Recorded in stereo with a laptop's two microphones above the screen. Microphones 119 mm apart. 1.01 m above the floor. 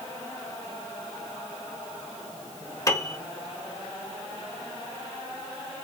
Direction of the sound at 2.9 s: 25° left (ahead or behind).